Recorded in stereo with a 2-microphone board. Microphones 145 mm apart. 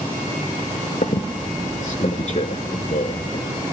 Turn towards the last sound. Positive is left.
turn(degrees=55)  # may be behind; listen again after turning